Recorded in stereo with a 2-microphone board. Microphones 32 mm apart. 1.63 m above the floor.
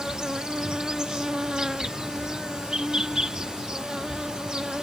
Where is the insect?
25° right (ahead or behind).